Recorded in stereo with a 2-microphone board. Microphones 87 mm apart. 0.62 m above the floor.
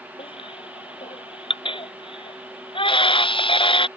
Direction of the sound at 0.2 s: 80° left.